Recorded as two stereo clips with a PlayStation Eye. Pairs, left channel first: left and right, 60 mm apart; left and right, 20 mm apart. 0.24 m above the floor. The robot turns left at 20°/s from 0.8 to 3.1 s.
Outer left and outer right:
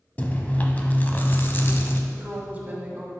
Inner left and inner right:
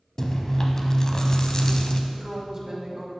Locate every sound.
0.2 s chewing: 25° left (ahead or behind), 0.7 m; by 2.0 s 40° left (ahead or behind), 0.7 m
2.1 s a woman speaking: 20° right (ahead or behind), 1.6 m; by 3.1 s 30° right (ahead or behind), 1.6 m